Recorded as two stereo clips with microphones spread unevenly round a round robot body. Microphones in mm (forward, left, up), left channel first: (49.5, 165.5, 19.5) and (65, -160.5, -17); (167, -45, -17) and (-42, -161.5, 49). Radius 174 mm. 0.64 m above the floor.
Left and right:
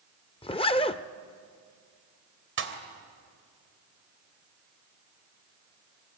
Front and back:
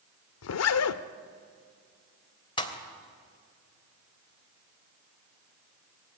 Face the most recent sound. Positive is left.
turn(degrees=-35)